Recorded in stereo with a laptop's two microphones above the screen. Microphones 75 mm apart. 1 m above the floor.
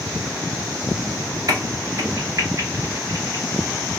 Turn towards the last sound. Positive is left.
turn(degrees=-50)  # may be behind; listen again after turning